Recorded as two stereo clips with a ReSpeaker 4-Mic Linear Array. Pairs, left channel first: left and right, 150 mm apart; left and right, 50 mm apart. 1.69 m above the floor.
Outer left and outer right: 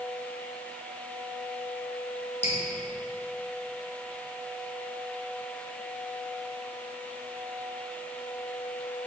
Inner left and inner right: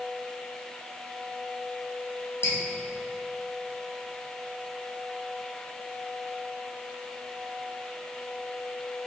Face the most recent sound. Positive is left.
turn(degrees=45)  # may be behind; listen again after turning